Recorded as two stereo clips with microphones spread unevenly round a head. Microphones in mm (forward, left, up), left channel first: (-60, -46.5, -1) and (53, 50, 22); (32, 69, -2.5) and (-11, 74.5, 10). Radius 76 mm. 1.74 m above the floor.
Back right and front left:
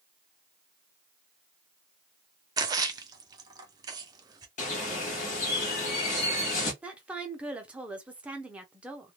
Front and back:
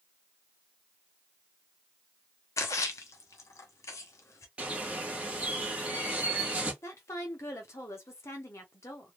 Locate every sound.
2.6 s a splash: 20° right, 0.5 m
4.6 s a bird: 165° right, 1.2 m
6.8 s a woman speaking: 35° right, 0.7 m